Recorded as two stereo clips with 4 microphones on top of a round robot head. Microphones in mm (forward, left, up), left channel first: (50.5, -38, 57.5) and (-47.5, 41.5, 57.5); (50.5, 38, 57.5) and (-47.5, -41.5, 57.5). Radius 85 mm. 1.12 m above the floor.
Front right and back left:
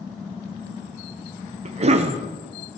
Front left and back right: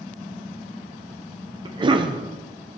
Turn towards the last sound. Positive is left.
turn(degrees=170)